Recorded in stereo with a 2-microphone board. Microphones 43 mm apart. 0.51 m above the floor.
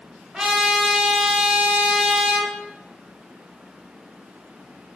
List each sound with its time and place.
0.3 s a trumpet: 5° right (ahead or behind), 1.2 m